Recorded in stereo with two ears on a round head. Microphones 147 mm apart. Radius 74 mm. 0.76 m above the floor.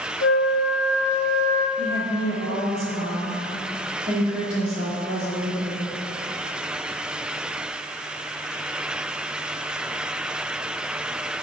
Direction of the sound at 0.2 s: 60° left (ahead or behind).